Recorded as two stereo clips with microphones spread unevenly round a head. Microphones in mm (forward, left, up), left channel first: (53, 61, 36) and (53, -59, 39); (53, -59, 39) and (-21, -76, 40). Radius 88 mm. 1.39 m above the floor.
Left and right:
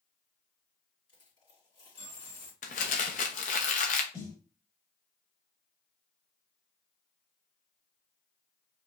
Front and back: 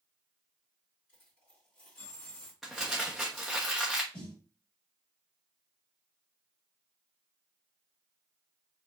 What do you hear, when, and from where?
1.1 s a dropped coin: 45° left, 2.5 m
2.6 s crumpling: 105° left, 0.9 m
4.1 s a snare drum: 35° left, 2.5 m